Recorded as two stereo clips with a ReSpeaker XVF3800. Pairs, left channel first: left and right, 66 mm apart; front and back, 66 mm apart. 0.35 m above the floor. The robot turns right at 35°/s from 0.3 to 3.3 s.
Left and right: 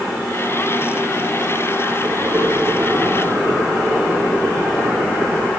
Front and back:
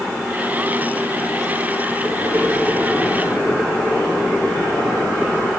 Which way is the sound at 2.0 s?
120° right.